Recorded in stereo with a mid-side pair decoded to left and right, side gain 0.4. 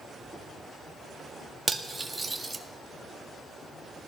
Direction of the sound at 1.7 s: 20° right.